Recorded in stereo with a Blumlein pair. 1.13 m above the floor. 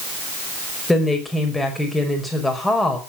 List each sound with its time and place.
0.9 s a woman speaking: 5° left, 5.5 m